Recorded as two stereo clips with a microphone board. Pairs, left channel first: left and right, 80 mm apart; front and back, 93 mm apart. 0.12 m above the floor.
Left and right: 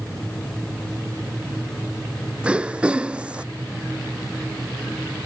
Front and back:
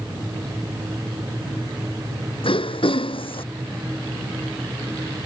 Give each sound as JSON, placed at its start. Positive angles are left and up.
{"t": 2.4, "sound": "throat clearing", "azimuth_deg": -15}